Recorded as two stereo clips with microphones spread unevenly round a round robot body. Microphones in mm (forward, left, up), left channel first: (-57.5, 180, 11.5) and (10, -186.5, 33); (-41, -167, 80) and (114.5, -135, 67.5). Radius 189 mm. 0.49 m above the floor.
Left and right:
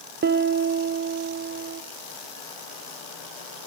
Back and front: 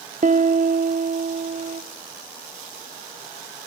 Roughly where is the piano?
Ahead.